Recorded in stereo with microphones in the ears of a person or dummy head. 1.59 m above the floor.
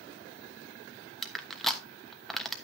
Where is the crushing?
Centre (ahead or behind), 1.1 m.